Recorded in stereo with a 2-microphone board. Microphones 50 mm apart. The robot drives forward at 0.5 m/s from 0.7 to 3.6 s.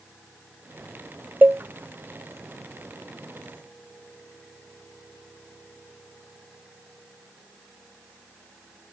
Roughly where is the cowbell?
Right.